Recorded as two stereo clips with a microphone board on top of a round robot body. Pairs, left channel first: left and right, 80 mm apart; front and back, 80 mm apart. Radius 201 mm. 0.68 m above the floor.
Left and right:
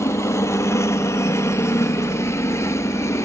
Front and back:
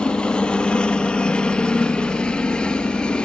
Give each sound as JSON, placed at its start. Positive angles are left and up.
{"t": 0.0, "sound": "a helicopter", "azimuth_deg": 70}